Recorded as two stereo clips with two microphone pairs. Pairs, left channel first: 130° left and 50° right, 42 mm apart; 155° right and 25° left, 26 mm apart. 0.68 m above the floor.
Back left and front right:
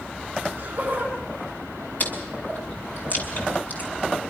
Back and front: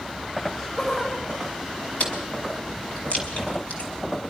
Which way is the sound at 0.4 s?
105° right.